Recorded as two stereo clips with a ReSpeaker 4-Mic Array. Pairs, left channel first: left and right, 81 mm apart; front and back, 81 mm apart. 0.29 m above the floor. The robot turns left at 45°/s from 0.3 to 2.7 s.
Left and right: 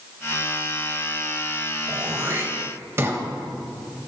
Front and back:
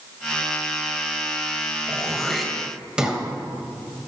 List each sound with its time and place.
1.9 s throat clearing: 70° right, 1.6 m; by 3.2 s 110° right, 1.6 m